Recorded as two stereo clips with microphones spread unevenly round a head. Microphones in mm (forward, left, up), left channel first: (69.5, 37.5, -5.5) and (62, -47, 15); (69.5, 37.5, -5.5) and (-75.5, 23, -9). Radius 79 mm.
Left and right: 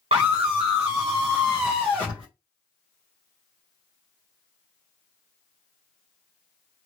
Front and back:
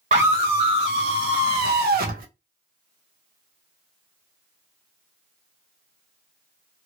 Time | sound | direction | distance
0.1 | a scream | 135° right | 1.3 m